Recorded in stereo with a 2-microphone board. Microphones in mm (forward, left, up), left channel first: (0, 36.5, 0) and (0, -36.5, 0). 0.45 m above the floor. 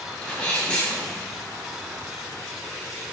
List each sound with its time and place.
0.2 s a sneeze: 15° left (ahead or behind), 0.8 m